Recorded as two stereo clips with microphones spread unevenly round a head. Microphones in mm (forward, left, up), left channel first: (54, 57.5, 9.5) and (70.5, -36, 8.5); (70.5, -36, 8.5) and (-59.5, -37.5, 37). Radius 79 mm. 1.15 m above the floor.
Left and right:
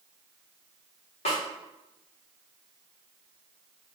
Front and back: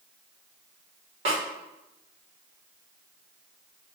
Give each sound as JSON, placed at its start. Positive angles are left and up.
{"t": 1.2, "sound": "a snare drum", "azimuth_deg": 125, "distance_m": 0.8}